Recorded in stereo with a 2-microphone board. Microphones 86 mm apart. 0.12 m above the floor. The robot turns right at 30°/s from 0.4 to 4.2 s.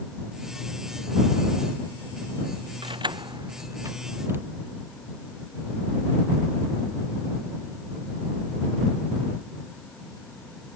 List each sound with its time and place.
2.8 s keys jangling: 65° right (ahead or behind); by 4.5 s 25° right (ahead or behind)